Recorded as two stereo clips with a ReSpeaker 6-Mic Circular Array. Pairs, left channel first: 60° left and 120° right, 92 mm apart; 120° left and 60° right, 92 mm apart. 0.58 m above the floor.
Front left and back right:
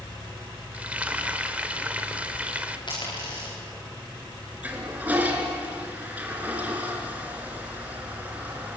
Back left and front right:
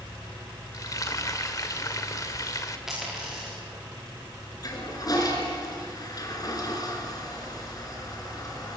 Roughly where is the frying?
Behind.